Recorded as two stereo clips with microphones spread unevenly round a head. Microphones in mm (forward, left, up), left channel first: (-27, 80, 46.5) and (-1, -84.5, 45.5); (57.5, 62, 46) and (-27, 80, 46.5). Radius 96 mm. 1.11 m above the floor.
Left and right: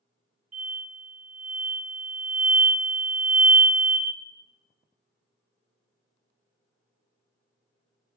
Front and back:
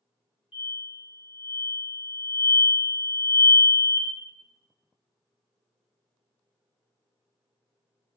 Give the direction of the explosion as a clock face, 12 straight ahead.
1 o'clock.